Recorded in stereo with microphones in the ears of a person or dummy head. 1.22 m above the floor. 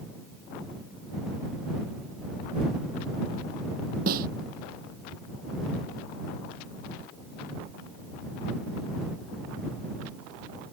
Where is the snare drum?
45° right (ahead or behind).